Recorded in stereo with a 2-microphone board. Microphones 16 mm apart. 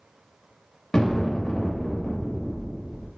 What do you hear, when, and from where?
0.9 s an explosion: 65° left (ahead or behind), 0.6 m